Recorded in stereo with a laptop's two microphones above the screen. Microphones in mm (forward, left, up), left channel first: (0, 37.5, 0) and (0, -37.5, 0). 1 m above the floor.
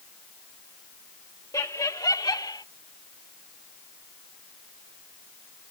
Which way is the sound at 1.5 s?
55° left (ahead or behind).